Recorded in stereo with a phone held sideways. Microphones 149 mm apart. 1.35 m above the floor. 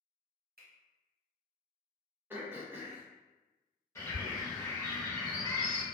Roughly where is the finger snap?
Right.